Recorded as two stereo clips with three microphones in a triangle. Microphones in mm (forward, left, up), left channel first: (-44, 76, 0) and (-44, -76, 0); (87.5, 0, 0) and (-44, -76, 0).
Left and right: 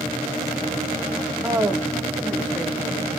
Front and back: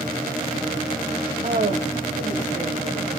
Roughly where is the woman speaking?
Behind right.